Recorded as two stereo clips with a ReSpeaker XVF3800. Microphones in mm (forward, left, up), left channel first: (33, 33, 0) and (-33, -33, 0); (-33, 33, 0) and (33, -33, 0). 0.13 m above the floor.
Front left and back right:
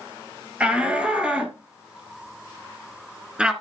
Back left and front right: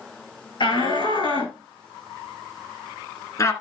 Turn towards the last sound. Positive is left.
turn(degrees=155)